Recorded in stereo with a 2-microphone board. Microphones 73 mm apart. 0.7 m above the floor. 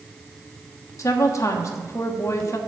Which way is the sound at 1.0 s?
45° left (ahead or behind).